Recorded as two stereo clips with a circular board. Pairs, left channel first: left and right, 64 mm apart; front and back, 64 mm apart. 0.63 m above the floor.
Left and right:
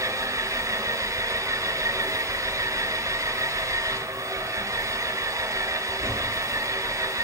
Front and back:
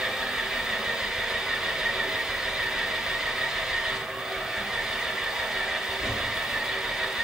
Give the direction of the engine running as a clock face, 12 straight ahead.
3 o'clock.